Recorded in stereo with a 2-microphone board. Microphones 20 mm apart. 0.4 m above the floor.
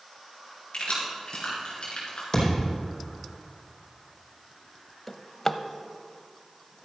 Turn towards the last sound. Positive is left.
turn(degrees=20)  # may be behind; listen again after turning